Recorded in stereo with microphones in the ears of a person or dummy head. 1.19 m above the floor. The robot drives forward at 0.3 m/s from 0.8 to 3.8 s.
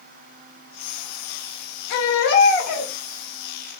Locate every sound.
1.9 s a baby crying: 55° left (ahead or behind), 1.1 m; by 2.9 s 50° left (ahead or behind), 1.2 m